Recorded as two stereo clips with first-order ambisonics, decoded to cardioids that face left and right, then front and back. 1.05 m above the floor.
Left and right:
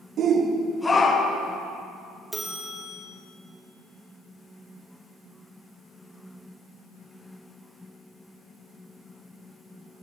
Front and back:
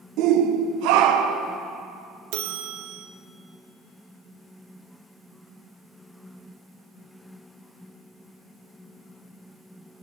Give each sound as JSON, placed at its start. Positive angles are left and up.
{"t": 0.2, "sound": "a shout", "azimuth_deg": -145, "distance_m": 0.6}
{"t": 2.3, "sound": "a bell", "azimuth_deg": -175, "distance_m": 0.7}